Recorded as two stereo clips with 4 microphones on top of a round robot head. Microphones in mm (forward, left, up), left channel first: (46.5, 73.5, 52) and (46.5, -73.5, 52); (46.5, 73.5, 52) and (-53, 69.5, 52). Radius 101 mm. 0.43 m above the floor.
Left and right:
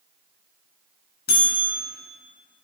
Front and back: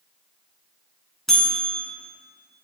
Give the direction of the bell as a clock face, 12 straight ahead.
9 o'clock.